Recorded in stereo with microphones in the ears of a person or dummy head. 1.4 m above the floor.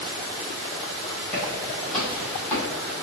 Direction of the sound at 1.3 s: 10° left (ahead or behind).